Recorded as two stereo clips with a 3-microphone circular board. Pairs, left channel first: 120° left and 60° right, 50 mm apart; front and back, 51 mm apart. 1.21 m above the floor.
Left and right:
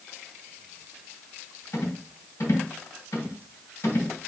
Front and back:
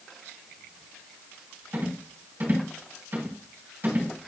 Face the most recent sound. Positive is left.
turn(degrees=135)